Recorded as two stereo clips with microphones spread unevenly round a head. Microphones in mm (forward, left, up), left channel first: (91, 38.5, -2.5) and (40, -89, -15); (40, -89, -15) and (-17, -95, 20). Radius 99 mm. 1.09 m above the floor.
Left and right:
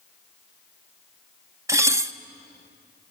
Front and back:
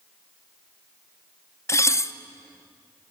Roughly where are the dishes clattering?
Ahead right.